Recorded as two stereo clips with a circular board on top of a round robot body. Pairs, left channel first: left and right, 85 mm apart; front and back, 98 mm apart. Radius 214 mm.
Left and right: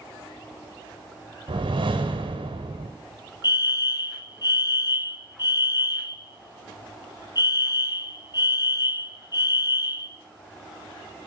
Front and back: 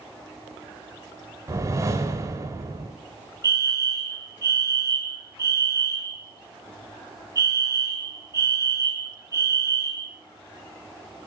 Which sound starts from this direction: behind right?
A whoosh, at 1.5 s.